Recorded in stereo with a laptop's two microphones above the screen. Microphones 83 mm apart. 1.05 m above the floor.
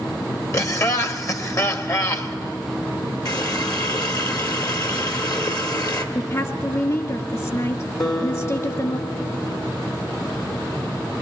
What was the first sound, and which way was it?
Laughter, 40° left (ahead or behind).